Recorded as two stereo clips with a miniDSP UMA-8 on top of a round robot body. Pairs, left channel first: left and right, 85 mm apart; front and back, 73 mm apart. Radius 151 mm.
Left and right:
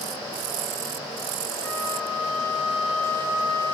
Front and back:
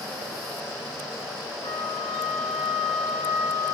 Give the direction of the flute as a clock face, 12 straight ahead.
11 o'clock.